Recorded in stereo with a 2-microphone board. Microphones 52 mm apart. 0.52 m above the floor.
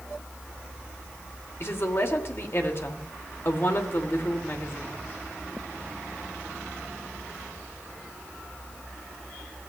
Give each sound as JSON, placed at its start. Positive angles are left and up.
{"t": 1.6, "sound": "a woman speaking", "side_deg": 50, "distance_m": 1.7}